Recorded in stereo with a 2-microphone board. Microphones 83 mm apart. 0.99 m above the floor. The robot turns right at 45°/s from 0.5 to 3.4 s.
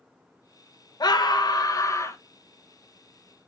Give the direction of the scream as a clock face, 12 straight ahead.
9 o'clock.